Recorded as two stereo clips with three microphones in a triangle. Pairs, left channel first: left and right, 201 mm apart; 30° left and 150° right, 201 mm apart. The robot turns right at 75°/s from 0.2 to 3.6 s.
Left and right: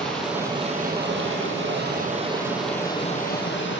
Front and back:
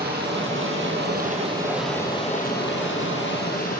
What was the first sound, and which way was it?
Running water, 175° left.